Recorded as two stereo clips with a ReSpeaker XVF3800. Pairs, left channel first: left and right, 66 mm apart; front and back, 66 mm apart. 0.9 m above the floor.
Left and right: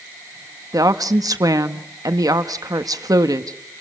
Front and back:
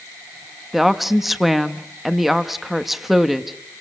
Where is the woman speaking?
95° right, 1.2 m.